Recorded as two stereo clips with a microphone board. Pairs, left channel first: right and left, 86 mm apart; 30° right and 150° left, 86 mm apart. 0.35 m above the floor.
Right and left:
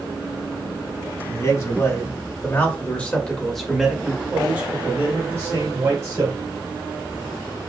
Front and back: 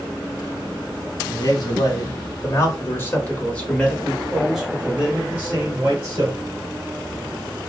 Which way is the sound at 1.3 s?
55° right.